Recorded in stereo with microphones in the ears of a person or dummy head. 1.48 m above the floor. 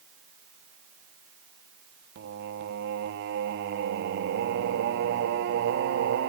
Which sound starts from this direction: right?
Singing, at 2.1 s.